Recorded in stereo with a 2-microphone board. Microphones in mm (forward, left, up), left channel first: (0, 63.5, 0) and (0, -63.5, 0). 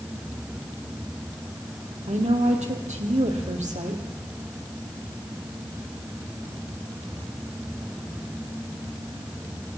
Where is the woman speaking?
70° right (ahead or behind), 4 m.